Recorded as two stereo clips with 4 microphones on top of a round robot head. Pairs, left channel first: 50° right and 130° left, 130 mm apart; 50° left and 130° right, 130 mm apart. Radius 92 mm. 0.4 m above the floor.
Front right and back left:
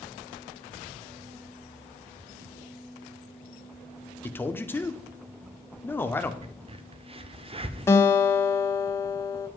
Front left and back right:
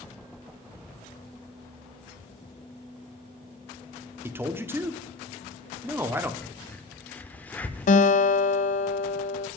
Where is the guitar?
20° left, 0.7 m.